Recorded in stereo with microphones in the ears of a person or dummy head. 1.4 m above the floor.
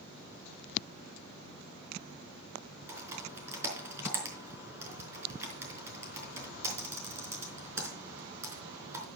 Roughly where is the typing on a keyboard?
Centre.